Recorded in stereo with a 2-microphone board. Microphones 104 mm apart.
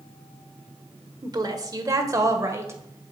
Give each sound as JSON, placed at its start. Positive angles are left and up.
{"t": 1.2, "sound": "a woman speaking", "side_deg": -40, "distance_m": 1.2}